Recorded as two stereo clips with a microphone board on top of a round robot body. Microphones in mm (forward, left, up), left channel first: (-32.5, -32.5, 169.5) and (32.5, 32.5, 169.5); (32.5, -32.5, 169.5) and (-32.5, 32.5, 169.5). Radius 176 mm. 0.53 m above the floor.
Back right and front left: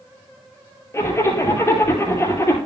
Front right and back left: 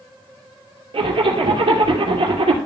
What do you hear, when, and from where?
0.9 s a zipper: 165° left, 2.5 m